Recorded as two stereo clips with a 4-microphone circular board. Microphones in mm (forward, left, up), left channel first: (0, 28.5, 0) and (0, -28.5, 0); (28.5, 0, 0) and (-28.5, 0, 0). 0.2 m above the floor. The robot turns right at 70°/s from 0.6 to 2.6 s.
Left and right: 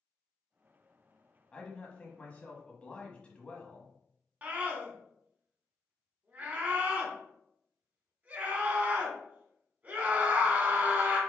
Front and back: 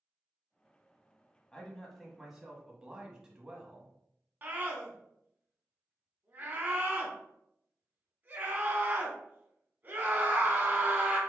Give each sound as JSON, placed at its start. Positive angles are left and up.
{"t": 1.5, "sound": "a man speaking", "azimuth_deg": 45, "distance_m": 1.2}
{"t": 4.4, "sound": "a scream", "azimuth_deg": -140, "distance_m": 1.6}